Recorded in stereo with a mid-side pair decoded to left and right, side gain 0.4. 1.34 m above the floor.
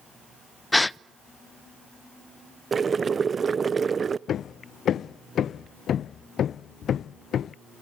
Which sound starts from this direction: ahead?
A gasp, at 0.7 s.